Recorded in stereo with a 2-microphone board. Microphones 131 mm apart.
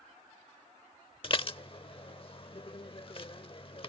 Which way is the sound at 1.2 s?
40° left (ahead or behind).